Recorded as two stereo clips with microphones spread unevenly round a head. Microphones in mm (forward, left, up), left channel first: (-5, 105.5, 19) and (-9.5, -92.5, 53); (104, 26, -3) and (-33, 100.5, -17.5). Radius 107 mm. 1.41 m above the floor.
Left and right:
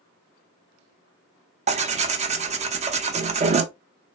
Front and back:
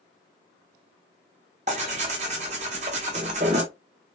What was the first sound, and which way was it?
Tearing paper, 150° right.